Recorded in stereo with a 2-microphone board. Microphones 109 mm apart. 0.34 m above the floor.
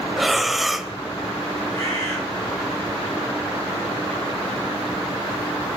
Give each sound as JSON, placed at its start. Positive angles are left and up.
{"t": 0.2, "sound": "breathing", "side_deg": 0, "distance_m": 0.9}
{"t": 1.7, "sound": "a bird", "side_deg": 30, "distance_m": 6.5}